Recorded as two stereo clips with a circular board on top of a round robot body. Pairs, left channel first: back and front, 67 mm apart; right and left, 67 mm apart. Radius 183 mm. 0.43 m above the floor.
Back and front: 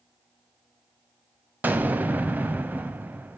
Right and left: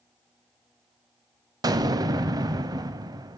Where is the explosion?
65° left, 0.5 m.